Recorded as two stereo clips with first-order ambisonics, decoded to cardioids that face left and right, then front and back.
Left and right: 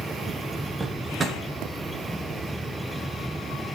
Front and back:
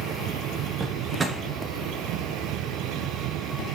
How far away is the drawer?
About 0.8 m.